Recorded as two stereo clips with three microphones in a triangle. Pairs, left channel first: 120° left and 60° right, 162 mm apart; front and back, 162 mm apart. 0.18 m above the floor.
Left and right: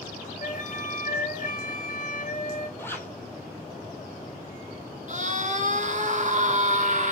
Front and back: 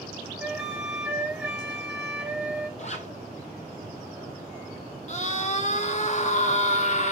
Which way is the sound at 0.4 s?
95° left.